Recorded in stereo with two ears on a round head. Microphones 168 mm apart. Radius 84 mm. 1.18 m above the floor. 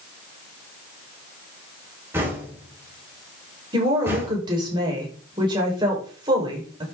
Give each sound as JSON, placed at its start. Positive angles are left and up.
{"t": 2.1, "sound": "knocking", "side_deg": -15, "distance_m": 6.0}
{"t": 3.7, "sound": "a woman speaking", "side_deg": -25, "distance_m": 5.5}